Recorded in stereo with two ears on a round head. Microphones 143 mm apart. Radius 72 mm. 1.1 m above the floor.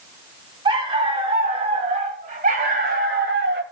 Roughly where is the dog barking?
Right.